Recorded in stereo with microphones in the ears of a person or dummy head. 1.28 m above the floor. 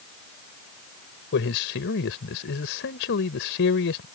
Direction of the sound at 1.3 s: 60° left (ahead or behind).